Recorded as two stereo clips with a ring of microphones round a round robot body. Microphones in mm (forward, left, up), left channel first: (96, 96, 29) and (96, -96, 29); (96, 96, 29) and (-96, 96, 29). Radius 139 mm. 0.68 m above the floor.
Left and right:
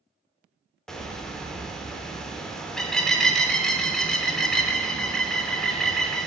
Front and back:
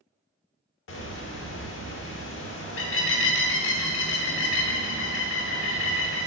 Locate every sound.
0.9 s a bird: straight ahead, 0.9 m